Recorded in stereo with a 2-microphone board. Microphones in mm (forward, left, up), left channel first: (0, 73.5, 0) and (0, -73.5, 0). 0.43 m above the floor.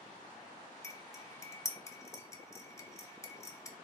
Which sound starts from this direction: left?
Cutlery clinking, at 0.8 s.